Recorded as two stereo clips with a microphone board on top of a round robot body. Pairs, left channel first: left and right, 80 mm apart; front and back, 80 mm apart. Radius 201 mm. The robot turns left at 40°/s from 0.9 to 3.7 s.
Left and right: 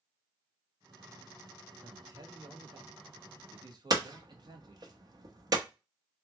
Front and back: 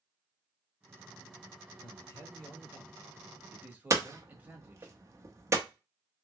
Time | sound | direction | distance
1.8 | a man speaking | 35° right | 1.4 m
3.9 | hammering | 130° right | 0.9 m